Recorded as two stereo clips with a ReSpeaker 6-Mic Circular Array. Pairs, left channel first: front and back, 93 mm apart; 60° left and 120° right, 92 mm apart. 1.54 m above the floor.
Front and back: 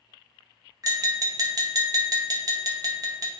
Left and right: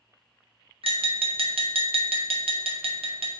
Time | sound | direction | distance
0.8 | tapping | 130° right | 0.6 m